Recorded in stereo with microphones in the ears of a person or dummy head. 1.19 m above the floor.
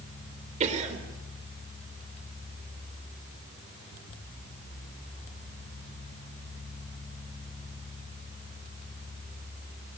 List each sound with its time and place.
0.6 s a cough: 40° right (ahead or behind), 4 m